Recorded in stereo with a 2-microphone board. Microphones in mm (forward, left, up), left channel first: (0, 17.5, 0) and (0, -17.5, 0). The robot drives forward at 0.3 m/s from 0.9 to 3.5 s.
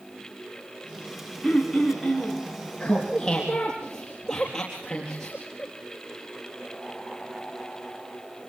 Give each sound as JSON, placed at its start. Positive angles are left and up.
{"t": 1.4, "sound": "throat clearing", "side_deg": 0, "distance_m": 5.5}
{"t": 2.8, "sound": "laughter", "side_deg": 20, "distance_m": 3.5}